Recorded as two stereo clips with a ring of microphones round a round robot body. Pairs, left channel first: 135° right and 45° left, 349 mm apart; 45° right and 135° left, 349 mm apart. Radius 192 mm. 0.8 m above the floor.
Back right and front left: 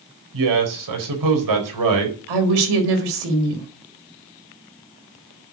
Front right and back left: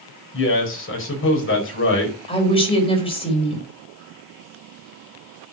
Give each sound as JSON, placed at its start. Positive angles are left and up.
{"t": 0.3, "sound": "a man speaking", "azimuth_deg": 10, "distance_m": 4.5}
{"t": 2.3, "sound": "a woman speaking", "azimuth_deg": 30, "distance_m": 4.5}